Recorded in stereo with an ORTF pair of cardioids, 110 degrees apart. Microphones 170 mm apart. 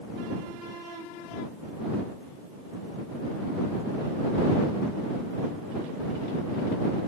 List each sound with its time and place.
Only background noise.